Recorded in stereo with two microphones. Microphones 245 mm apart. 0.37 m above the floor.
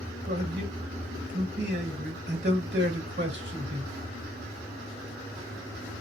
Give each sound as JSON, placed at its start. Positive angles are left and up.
{"t": 0.3, "sound": "a man speaking", "side_deg": -45, "distance_m": 1.6}